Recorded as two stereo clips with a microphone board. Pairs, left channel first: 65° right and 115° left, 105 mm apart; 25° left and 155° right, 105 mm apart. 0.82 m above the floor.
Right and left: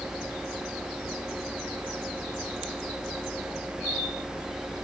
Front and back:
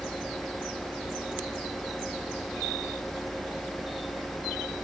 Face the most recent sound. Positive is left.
No sound to turn to.